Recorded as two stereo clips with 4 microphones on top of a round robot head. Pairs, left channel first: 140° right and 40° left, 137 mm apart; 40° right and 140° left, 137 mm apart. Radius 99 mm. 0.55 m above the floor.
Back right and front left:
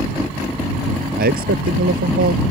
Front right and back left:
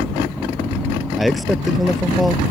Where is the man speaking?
50° left.